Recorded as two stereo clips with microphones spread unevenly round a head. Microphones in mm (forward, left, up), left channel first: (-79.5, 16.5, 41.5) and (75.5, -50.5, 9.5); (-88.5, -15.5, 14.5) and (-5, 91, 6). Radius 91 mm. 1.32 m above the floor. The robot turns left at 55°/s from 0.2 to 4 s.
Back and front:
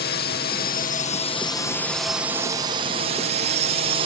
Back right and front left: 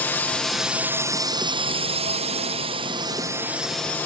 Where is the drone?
160° left; by 4.0 s 50° right.